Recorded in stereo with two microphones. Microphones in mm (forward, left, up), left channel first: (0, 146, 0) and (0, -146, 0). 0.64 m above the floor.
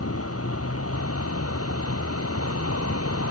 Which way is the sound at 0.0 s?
50° left (ahead or behind).